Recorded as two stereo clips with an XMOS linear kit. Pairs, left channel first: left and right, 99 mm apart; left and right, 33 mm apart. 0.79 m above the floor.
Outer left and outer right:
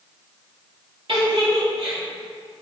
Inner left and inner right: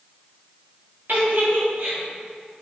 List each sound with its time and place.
1.1 s a giggle: 60° right (ahead or behind), 1.5 m